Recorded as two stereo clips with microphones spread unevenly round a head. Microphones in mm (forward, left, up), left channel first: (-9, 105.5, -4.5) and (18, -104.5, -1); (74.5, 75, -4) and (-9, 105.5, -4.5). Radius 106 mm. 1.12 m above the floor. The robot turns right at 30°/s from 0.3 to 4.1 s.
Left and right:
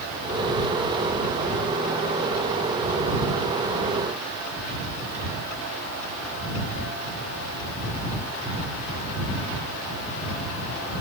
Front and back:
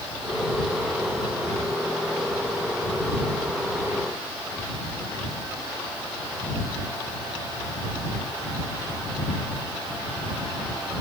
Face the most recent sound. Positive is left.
No sound to turn to.